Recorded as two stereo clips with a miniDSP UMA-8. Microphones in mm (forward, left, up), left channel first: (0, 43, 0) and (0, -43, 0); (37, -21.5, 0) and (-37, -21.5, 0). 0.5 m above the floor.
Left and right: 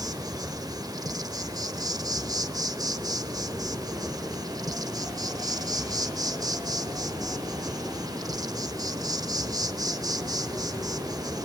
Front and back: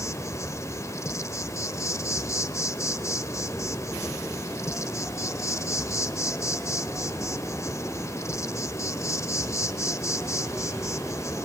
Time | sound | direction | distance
0.0 | an insect | 50° right | 1.1 m